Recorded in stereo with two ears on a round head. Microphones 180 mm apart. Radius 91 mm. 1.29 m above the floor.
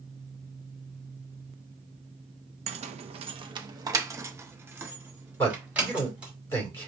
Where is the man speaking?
10° left (ahead or behind), 3.5 m.